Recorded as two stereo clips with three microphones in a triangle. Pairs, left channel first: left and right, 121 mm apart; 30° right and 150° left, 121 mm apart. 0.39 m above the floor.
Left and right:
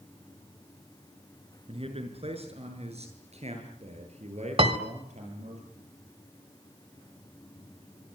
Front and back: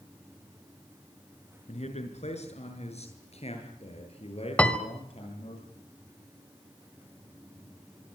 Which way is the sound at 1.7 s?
55° right.